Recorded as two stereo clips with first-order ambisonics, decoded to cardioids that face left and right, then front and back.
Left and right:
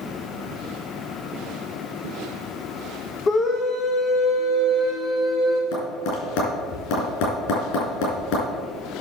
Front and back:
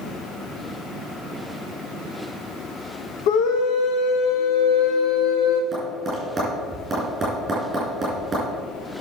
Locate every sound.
3.3 s a scream: 20° left, 0.9 m
5.7 s tapping: 105° left, 5.5 m